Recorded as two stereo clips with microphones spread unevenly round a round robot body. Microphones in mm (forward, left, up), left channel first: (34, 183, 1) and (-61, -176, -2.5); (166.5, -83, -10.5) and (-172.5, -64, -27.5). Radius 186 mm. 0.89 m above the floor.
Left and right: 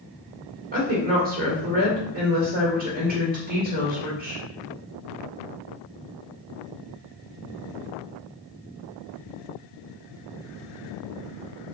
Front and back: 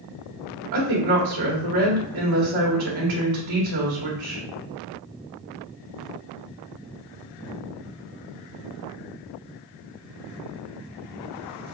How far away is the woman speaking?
About 1.9 m.